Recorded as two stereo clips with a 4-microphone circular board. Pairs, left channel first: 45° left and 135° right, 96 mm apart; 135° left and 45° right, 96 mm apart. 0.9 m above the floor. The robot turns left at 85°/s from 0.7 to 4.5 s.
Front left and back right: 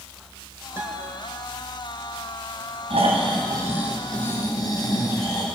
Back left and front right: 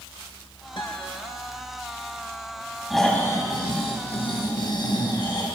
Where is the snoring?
130° right, 3.5 m; by 5.5 s 95° left, 3.5 m.